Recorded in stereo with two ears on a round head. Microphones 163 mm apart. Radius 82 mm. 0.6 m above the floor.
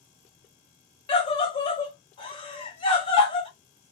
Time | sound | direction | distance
1.1 | a scream | 30° left (ahead or behind) | 1.3 m